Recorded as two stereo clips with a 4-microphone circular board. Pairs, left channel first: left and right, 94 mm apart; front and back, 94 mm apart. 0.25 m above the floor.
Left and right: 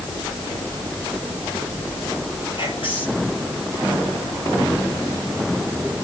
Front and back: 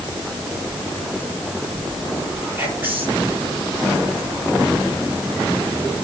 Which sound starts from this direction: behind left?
Whispering, at 2.6 s.